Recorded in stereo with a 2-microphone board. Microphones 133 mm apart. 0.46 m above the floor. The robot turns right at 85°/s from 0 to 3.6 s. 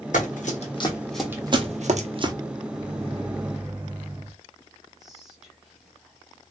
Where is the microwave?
90° right, 1.3 m; by 4.3 s 10° right, 1.3 m.